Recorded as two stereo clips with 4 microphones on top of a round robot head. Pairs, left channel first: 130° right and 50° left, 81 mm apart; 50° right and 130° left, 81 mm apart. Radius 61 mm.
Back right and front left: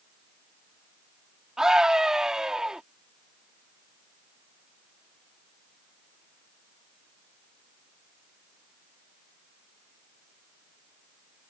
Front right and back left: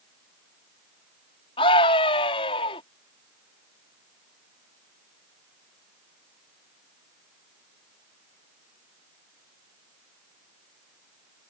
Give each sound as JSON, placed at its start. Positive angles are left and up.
{"t": 1.6, "sound": "a scream", "azimuth_deg": -35}